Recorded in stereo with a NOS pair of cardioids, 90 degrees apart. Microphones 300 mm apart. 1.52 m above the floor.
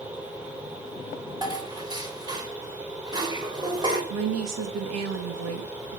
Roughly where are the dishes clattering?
Ahead.